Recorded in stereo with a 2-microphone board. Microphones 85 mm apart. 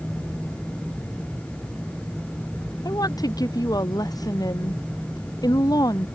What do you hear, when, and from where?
2.9 s a woman speaking: 50° left (ahead or behind)